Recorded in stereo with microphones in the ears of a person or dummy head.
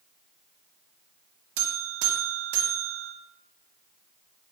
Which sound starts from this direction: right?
A buzzer, at 1.6 s.